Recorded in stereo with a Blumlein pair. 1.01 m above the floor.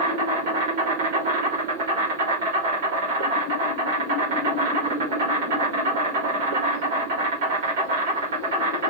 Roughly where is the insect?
Ahead right.